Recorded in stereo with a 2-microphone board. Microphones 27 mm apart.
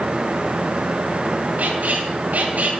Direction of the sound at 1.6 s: 75° right (ahead or behind).